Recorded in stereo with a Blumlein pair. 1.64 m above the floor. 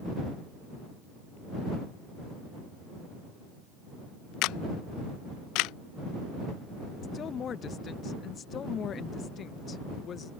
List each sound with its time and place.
4.4 s a camera shutter: 40° left
7.0 s a woman speaking: 25° left